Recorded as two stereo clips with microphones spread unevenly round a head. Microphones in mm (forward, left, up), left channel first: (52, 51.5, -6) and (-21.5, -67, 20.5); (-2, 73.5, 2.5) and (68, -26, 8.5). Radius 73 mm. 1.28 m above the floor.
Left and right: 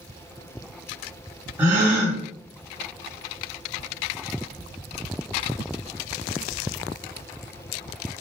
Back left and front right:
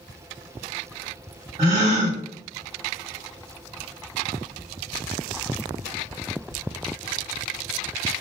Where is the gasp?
85° right, 1.2 m.